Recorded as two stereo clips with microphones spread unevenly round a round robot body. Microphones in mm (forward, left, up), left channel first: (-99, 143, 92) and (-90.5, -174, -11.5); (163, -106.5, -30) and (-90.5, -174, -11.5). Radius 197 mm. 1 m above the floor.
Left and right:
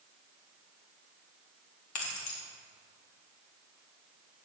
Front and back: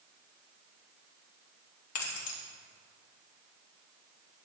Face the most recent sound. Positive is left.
turn(degrees=45)